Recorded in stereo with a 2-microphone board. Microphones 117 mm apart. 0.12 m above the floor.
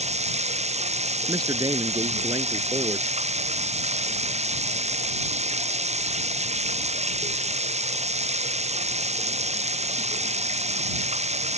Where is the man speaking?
35° right (ahead or behind).